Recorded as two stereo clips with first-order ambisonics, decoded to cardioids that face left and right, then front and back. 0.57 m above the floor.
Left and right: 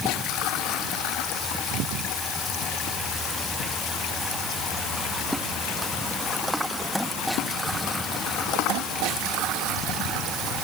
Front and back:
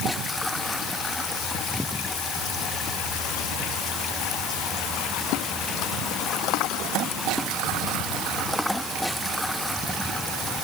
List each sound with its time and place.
Only background noise.